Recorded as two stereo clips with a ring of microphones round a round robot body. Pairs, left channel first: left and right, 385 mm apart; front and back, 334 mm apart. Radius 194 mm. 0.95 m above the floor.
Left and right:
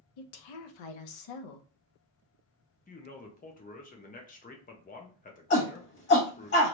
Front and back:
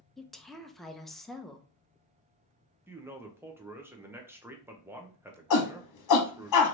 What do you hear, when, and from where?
0.2 s a woman speaking: 90° left, 0.7 m
2.9 s a man speaking: 110° left, 0.7 m
5.5 s a shout: 30° left, 1.1 m